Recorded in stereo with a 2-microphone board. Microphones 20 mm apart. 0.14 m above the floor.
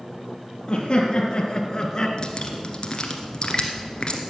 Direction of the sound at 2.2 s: 40° left (ahead or behind).